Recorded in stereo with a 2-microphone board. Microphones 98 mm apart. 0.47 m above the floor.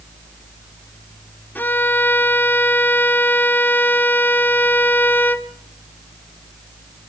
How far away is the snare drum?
No snare drum in this recording.